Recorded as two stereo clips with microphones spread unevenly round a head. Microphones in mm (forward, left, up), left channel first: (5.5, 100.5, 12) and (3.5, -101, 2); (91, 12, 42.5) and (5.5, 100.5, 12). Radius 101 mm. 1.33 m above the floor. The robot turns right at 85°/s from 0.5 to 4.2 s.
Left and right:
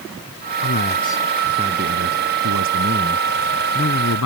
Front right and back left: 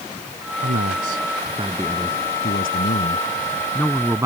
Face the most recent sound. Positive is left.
turn(degrees=65)